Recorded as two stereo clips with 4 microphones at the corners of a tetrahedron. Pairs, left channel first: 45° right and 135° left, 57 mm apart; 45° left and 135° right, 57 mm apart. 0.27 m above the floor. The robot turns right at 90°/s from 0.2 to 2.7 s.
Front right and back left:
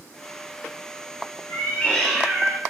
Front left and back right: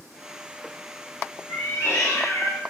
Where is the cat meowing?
10° right, 1.1 m; by 2.6 s 90° left, 1.1 m.